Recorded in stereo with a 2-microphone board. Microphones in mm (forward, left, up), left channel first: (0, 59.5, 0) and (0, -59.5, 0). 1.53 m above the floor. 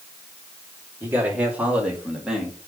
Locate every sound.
1.0 s a man speaking: 15° right (ahead or behind), 3.5 m; by 2.6 s centre (ahead or behind), 2.5 m